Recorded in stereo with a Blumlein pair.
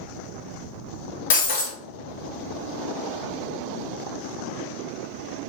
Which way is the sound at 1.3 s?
55° left.